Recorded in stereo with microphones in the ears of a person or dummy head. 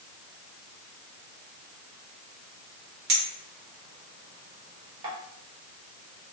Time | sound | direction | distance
3.1 | a clink | 35° right (ahead or behind) | 1.0 m